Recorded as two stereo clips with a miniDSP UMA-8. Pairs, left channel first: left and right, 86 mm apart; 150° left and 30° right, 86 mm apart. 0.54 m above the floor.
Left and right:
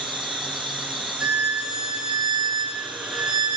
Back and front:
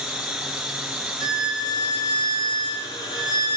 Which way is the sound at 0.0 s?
115° right.